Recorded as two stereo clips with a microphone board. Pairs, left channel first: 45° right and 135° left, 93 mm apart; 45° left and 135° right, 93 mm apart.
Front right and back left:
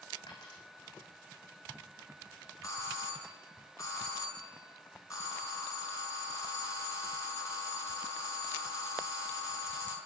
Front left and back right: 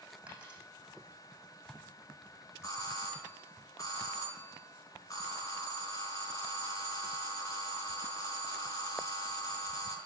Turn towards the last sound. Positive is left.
turn(degrees=0)